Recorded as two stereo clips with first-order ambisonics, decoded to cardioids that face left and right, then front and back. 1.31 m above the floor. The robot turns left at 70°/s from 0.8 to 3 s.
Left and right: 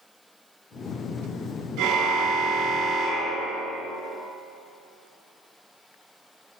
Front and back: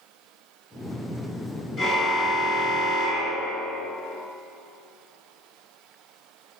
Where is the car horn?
100° right, 7 m; by 3.9 s 175° left, 7 m.